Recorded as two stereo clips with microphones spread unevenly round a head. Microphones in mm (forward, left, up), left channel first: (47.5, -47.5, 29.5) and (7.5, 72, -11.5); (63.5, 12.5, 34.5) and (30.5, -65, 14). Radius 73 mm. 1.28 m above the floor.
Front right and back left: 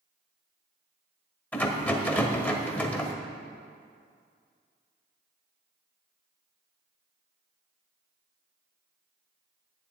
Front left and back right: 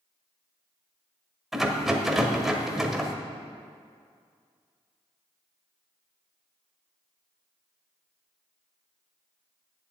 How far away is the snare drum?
I don't hear a snare drum.